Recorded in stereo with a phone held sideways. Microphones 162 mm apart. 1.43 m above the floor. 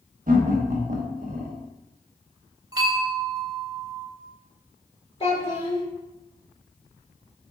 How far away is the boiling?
I don't hear boiling.